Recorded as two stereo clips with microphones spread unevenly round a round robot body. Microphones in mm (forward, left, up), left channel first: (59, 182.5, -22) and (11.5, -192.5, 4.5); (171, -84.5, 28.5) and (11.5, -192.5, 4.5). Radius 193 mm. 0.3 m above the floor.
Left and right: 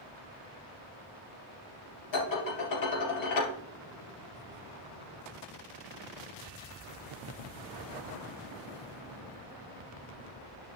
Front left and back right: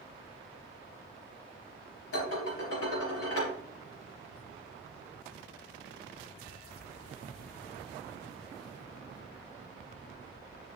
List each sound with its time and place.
2.1 s dishes clattering: 45° left, 3.5 m